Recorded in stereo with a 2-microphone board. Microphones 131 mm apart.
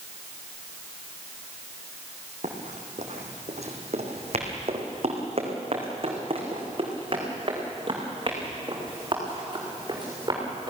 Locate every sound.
2.4 s running footsteps: 65° right (ahead or behind), 3.5 m; by 10.7 s 30° right (ahead or behind), 6.5 m